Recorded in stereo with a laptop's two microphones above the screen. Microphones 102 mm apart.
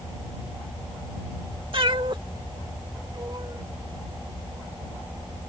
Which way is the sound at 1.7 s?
55° right (ahead or behind).